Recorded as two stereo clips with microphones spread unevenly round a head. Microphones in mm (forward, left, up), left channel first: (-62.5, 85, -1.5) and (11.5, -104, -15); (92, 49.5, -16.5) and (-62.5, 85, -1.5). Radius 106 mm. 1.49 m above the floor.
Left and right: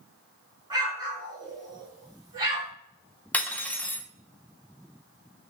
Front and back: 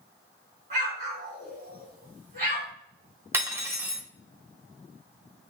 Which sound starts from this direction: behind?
Cutlery clinking, at 3.3 s.